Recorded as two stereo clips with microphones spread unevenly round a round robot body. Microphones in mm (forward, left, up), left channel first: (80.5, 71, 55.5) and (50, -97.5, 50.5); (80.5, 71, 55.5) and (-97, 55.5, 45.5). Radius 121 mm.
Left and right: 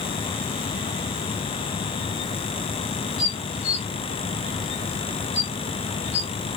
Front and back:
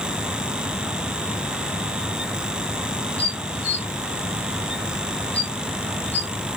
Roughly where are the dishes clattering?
Left.